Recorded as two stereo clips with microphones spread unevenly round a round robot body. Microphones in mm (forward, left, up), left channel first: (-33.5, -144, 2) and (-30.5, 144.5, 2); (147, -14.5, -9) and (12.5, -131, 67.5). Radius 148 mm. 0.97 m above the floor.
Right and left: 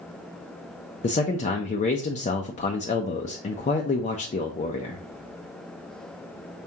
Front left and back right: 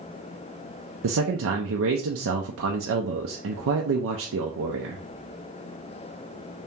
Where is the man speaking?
155° right, 0.5 m.